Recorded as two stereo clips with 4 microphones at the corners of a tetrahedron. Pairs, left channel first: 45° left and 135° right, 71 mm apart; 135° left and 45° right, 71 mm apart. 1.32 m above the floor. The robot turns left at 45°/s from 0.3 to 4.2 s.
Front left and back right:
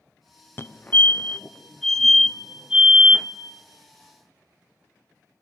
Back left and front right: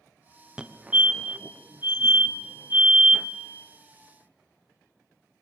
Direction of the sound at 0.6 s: 20° left.